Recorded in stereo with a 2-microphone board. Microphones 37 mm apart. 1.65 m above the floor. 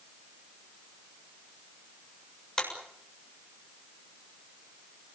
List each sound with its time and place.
2.6 s a clap: 20° left (ahead or behind), 7 m